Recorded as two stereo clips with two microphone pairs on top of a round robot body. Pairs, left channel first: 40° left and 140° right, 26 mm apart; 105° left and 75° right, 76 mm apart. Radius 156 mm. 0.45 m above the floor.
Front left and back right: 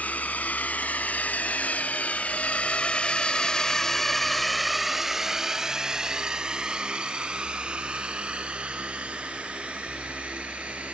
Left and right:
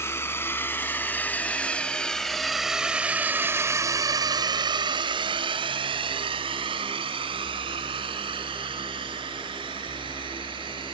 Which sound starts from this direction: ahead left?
A drone, at 0.0 s.